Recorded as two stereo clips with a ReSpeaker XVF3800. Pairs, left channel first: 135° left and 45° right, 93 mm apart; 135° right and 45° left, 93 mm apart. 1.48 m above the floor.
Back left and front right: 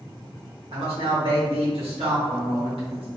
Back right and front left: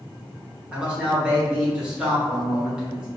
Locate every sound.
0.7 s a man speaking: 35° right, 1.3 m